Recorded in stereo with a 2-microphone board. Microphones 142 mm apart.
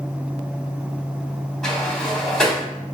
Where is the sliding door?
5° left (ahead or behind), 1.1 m.